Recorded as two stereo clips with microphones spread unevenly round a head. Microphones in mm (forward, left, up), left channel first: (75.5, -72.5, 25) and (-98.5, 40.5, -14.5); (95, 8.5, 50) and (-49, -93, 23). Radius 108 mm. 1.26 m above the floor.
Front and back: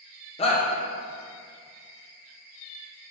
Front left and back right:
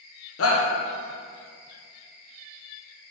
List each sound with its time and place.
0.4 s a shout: 35° left, 1.5 m